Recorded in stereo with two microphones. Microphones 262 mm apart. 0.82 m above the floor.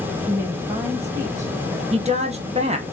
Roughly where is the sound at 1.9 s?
Right.